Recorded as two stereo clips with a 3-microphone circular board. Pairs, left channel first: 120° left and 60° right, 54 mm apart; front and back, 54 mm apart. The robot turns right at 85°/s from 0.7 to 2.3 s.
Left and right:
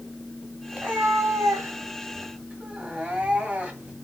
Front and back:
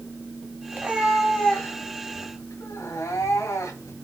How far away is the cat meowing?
About 1.7 m.